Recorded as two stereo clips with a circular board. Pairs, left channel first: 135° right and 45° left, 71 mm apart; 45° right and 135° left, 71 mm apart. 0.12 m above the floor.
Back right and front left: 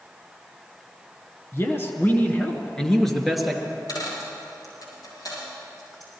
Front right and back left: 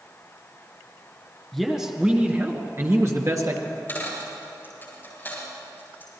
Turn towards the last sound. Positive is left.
turn(degrees=-110)